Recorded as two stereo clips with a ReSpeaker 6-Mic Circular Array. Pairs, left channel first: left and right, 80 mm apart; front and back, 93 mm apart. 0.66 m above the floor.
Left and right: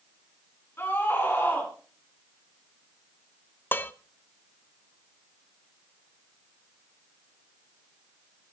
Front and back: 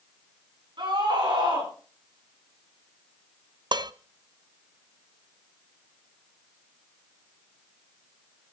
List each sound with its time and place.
0.8 s a scream: 150° left, 6.5 m
3.7 s dishes clattering: 150° left, 0.5 m